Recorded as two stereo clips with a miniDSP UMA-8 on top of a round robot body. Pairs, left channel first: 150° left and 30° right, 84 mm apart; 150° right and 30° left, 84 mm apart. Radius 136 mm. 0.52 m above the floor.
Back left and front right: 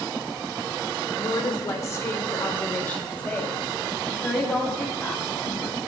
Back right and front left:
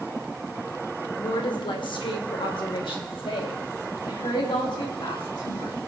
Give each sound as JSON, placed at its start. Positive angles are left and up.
{"t": 1.2, "sound": "a woman speaking", "azimuth_deg": -175, "distance_m": 1.9}